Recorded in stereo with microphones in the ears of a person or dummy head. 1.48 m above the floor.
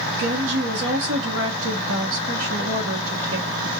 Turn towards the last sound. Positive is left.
turn(degrees=-70)  # may be behind; listen again after turning